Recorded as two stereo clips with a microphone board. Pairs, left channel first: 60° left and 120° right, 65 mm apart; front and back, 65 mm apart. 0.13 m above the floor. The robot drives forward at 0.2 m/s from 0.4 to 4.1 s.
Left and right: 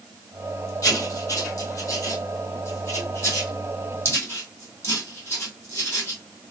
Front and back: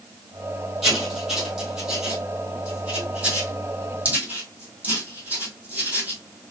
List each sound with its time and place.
0.8 s writing: 95° left, 1.8 m; by 6.4 s 115° left, 2.0 m